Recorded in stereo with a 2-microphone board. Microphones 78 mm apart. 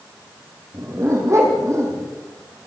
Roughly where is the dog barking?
Right.